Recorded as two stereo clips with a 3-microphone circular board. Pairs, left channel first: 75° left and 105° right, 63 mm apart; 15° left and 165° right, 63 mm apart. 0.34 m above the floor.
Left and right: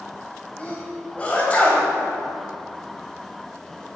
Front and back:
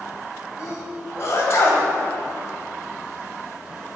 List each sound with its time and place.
0.6 s a sneeze: 15° left, 1.8 m